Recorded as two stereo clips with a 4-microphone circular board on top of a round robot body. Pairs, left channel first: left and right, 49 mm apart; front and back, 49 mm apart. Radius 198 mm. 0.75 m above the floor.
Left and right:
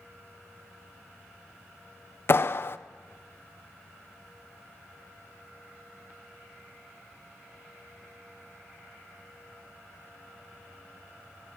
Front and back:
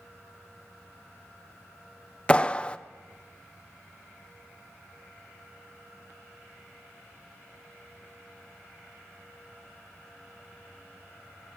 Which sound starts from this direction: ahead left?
A clap, at 2.3 s.